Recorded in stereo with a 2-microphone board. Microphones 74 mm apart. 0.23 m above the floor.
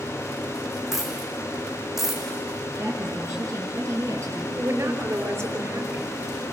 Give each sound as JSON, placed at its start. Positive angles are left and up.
{"t": 0.9, "sound": "a dropped coin", "side_deg": -5, "distance_m": 4.5}
{"t": 2.8, "sound": "a woman speaking", "side_deg": -40, "distance_m": 6.0}
{"t": 4.6, "sound": "a woman speaking", "side_deg": -40, "distance_m": 3.5}